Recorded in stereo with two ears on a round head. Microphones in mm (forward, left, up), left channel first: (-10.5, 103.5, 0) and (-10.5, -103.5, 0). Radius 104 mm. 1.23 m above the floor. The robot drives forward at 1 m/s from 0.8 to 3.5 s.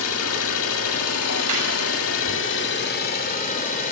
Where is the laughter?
80° right, 9.5 m.